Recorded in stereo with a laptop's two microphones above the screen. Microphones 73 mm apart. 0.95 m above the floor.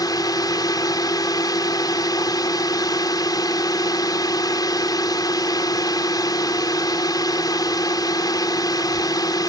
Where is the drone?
65° left (ahead or behind).